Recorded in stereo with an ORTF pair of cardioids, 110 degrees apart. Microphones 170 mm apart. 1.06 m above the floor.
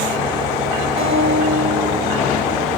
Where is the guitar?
65° right, 5 m.